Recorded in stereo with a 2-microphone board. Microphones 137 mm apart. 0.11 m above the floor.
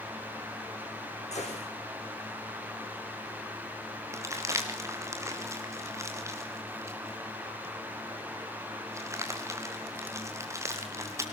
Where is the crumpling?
20° right (ahead or behind), 4 m.